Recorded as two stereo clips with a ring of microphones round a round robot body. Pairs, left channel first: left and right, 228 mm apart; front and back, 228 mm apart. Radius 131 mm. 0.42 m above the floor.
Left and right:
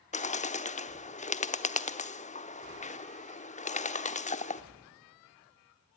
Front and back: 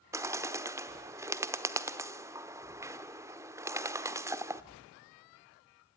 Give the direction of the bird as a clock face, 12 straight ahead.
8 o'clock.